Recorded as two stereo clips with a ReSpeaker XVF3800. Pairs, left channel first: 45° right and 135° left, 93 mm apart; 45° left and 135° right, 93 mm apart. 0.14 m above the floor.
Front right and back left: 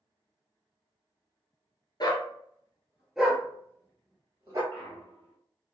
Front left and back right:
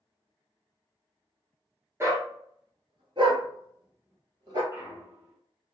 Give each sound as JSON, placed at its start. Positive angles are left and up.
{"t": 2.0, "sound": "a dog barking", "azimuth_deg": -80, "distance_m": 0.9}
{"t": 4.7, "sound": "a clunk", "azimuth_deg": -115, "distance_m": 1.5}